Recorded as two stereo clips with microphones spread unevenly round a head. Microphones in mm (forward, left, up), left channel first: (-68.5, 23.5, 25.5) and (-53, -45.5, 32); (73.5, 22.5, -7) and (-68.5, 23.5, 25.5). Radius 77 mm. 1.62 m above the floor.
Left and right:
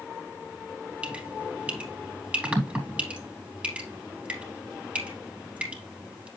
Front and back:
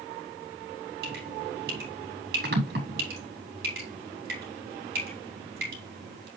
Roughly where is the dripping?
Behind right.